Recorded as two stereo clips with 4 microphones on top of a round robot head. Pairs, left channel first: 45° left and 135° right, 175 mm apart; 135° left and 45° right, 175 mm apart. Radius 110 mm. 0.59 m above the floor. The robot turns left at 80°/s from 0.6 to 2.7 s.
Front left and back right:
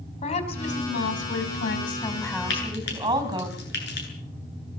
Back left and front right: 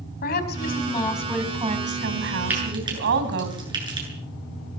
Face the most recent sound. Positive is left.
turn(degrees=20)